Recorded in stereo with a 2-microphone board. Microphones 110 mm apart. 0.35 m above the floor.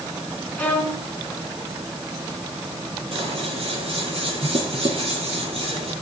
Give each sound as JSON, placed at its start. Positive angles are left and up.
{"t": 0.6, "sound": "a violin", "side_deg": 15, "distance_m": 4.5}
{"t": 3.1, "sound": "scissors", "side_deg": -60, "distance_m": 6.0}